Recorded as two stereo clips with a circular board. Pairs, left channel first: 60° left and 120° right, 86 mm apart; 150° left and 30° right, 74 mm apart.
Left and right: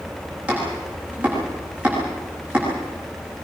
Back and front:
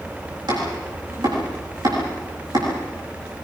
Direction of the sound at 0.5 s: 45° right.